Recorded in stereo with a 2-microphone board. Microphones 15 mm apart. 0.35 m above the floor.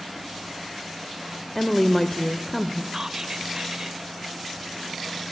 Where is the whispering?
30° right (ahead or behind), 1.4 m.